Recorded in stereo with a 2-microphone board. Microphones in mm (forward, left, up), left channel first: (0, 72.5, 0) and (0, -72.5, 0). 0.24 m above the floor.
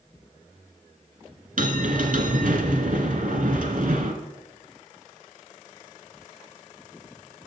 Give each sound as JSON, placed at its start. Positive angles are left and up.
{"t": 1.6, "sound": "a bell", "side_deg": -70, "distance_m": 1.3}